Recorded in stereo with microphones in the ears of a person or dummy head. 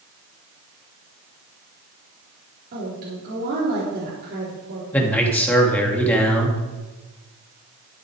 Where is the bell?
I don't hear a bell.